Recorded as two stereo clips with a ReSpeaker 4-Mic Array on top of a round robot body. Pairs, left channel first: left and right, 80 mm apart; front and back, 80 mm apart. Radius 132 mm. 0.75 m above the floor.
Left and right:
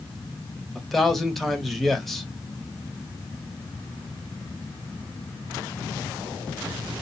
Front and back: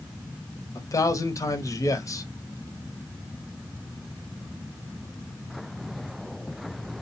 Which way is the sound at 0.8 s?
5° left.